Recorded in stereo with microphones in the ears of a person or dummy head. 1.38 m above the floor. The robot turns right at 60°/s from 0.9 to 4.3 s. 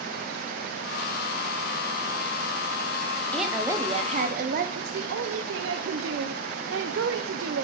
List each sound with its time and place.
3.3 s a woman speaking: 175° left, 0.7 m; by 4.7 s 125° right, 0.7 m
4.8 s a woman speaking: 70° right (ahead or behind), 0.5 m